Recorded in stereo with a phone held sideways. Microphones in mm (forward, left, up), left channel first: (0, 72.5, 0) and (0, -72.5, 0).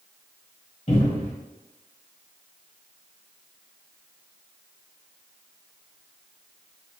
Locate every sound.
0.9 s a cupboard door: 45° left (ahead or behind), 1.7 m